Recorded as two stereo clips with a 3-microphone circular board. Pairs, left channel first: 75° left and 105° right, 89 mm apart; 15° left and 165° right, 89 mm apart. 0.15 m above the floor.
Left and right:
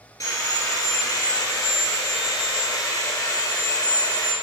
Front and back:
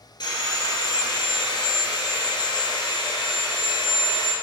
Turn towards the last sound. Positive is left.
turn(degrees=30)